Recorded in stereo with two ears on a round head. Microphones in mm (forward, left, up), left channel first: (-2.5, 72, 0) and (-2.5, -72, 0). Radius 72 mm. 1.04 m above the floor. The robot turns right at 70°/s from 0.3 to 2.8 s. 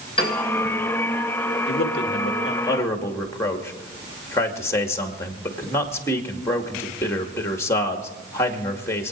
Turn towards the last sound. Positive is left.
turn(degrees=160)